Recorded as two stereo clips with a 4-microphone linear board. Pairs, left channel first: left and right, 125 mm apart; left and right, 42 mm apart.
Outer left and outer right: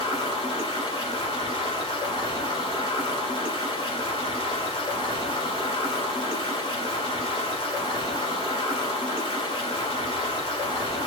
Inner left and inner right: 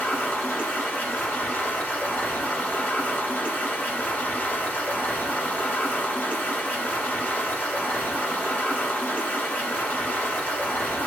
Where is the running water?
40° left (ahead or behind), 1.6 m.